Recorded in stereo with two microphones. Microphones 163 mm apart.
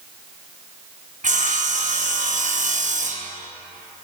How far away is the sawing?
About 0.8 m.